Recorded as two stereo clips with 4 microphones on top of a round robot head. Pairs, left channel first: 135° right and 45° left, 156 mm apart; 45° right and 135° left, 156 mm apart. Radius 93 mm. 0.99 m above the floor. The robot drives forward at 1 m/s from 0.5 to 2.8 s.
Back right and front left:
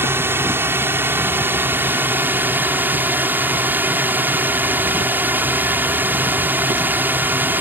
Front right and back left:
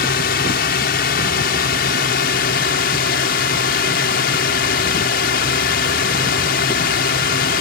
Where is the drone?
30° right; by 7.6 s 35° right.